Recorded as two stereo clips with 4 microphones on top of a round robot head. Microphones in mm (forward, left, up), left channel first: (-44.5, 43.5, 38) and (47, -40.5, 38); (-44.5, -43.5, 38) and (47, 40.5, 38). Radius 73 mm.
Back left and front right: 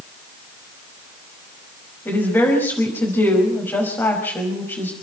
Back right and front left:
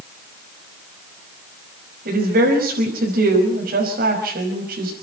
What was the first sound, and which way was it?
A woman speaking, 60° left.